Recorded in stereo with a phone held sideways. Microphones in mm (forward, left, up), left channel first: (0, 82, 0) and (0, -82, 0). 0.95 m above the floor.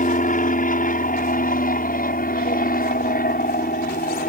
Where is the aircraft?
55° left (ahead or behind); by 4.3 s 65° left (ahead or behind).